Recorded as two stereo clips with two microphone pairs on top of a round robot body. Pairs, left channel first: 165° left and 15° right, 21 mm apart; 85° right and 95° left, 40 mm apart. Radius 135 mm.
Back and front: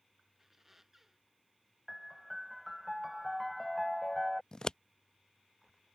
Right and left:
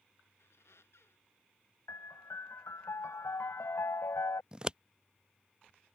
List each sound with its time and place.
0.4 s a squeak: 100° right
1.9 s a piano: 110° right
4.5 s scissors: 140° left